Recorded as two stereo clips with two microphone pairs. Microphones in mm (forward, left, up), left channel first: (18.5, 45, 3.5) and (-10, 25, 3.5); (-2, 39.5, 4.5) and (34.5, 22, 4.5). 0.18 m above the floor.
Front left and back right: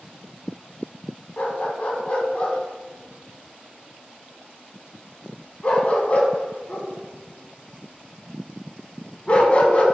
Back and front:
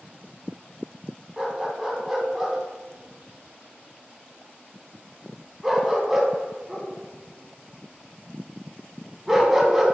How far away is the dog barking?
About 0.5 m.